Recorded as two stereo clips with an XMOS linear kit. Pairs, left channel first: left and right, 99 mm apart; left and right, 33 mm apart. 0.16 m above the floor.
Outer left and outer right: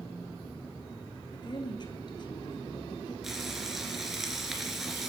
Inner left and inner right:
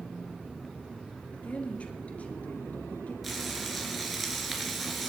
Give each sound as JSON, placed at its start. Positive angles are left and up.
{"t": 1.3, "sound": "a woman speaking", "side_deg": 45, "distance_m": 3.0}
{"t": 3.2, "sound": "frying", "side_deg": -5, "distance_m": 3.0}